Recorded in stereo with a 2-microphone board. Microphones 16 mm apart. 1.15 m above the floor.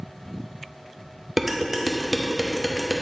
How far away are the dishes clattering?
About 0.7 m.